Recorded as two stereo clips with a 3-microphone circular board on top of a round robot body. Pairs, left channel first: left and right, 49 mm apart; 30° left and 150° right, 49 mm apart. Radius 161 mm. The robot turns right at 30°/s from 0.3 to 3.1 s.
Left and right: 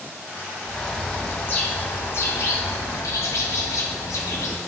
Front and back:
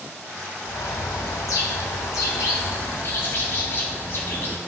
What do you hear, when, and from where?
0.7 s a bird: 5° left, 0.9 m; by 4.6 s 80° left, 0.9 m